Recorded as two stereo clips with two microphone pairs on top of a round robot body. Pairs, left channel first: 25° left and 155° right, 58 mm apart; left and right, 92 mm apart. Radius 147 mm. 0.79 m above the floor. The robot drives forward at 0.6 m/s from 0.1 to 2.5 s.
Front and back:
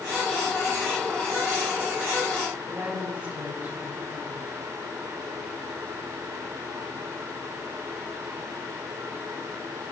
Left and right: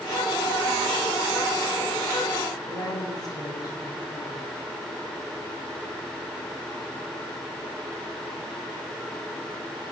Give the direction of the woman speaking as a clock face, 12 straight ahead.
7 o'clock.